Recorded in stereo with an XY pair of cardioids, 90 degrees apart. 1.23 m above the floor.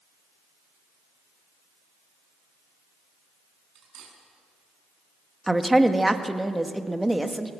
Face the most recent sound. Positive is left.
turn(degrees=-10)